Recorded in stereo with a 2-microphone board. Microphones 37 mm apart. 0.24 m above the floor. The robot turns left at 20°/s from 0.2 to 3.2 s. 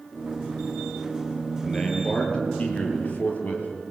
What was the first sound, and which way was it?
A man speaking, 160° left.